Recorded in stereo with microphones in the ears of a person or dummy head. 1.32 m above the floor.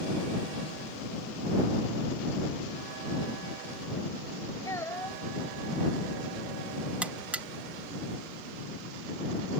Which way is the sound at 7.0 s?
10° right (ahead or behind).